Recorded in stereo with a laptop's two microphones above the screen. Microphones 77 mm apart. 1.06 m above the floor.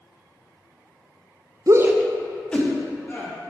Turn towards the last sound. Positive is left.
turn(degrees=25)  # may be behind; listen again after turning